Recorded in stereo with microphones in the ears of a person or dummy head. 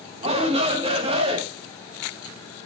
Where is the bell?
I don't hear a bell.